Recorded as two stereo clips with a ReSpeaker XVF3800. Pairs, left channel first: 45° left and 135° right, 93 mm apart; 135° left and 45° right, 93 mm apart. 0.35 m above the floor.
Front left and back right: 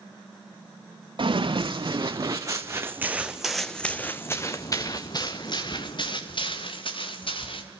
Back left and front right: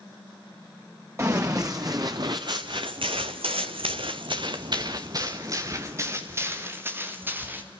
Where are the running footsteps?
105° right, 2.5 m; by 7.6 s 25° left, 4 m.